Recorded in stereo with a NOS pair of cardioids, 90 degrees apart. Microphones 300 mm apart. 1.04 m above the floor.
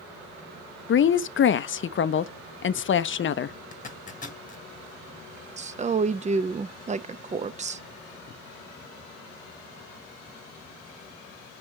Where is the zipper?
25° left, 1.3 m.